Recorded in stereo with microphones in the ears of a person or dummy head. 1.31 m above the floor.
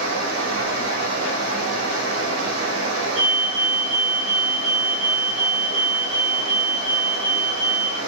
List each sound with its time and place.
0.0 s running water: 60° right (ahead or behind), 1.2 m
3.1 s a fire alarm: 30° right (ahead or behind), 1.3 m